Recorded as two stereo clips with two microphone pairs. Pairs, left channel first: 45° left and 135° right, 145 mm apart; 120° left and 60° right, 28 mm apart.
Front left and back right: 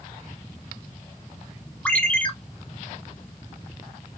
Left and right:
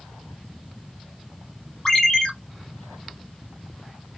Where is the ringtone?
110° left, 0.8 m.